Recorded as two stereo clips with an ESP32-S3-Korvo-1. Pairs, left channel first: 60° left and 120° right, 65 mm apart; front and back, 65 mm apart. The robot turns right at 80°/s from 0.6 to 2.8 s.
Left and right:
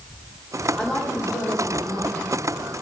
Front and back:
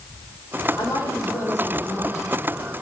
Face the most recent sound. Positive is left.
turn(degrees=145)